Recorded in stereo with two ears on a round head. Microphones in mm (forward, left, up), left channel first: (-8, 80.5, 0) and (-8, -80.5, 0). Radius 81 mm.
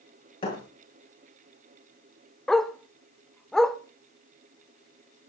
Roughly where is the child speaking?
No child speaking in this recording.